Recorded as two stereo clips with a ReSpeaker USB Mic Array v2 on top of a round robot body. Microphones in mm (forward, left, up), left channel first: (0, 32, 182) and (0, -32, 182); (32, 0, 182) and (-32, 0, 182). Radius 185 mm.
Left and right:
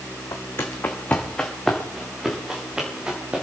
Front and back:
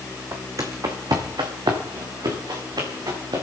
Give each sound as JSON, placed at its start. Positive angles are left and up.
{"t": 0.3, "sound": "footsteps", "azimuth_deg": 130, "distance_m": 1.8}